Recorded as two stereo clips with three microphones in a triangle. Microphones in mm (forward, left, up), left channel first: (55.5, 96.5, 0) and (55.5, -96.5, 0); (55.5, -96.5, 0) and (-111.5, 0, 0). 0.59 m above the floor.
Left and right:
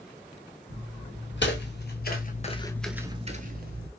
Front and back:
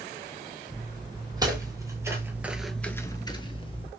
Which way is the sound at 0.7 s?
85° left.